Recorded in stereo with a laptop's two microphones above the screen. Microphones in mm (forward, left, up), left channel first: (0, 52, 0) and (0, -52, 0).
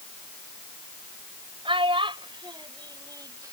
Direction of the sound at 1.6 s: 60° right (ahead or behind).